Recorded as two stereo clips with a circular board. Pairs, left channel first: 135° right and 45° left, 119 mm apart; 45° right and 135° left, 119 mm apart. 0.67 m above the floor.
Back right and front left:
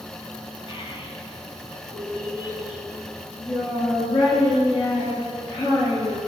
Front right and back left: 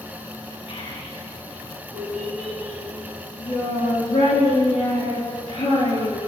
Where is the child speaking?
90° right, 3.5 m.